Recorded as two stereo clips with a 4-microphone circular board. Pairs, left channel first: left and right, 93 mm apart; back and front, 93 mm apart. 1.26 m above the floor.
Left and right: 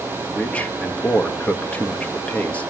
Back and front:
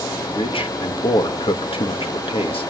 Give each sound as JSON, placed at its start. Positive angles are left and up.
{"t": 0.3, "sound": "a man speaking", "azimuth_deg": 165, "distance_m": 2.0}